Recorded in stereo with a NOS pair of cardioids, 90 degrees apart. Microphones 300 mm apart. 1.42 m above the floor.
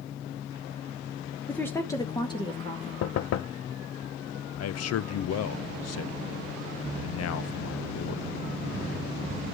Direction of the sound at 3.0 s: 55° left.